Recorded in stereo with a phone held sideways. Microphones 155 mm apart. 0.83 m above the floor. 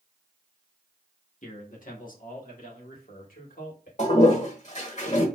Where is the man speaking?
55° left (ahead or behind), 1.5 m; by 3.9 s 70° left (ahead or behind), 3 m.